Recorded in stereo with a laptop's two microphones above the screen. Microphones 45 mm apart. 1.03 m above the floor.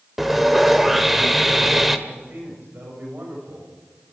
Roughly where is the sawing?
Centre.